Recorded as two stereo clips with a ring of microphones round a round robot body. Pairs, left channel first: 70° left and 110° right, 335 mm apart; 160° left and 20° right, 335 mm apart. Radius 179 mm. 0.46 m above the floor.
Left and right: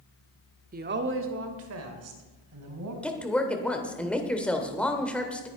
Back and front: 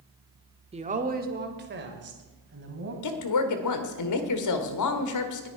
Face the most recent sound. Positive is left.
turn(degrees=155)